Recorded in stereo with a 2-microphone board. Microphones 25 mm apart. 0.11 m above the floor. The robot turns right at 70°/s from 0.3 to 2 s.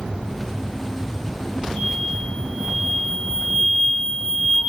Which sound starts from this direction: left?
An explosion, at 1.8 s.